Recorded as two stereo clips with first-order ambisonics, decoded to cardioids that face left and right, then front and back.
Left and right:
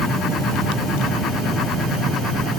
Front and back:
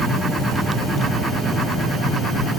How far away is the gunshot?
I don't hear a gunshot.